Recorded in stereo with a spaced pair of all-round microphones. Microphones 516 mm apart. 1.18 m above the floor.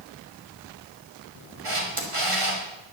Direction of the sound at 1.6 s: 70° right (ahead or behind).